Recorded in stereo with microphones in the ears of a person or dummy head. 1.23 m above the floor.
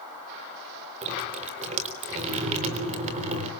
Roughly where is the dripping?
Right.